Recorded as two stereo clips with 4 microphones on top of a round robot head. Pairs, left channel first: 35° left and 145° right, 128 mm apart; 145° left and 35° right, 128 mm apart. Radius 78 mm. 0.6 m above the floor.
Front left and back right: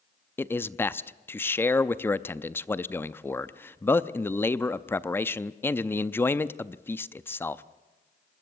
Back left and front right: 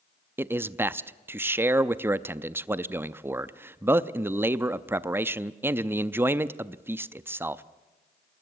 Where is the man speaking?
Straight ahead, 0.5 m.